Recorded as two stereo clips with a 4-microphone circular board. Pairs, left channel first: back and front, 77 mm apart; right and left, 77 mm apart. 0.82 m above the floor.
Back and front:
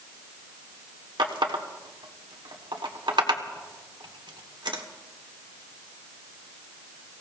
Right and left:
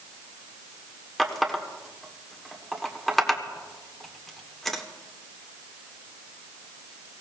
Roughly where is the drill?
I don't hear a drill.